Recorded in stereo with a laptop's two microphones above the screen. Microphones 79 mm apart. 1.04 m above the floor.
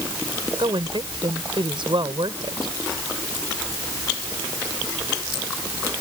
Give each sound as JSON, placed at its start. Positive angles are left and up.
{"t": 0.6, "sound": "a woman speaking", "side_deg": -80}